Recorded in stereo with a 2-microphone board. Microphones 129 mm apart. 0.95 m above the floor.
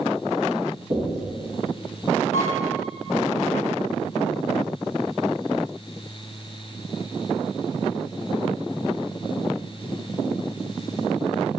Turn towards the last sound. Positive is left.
turn(degrees=60)  # may be behind; listen again after turning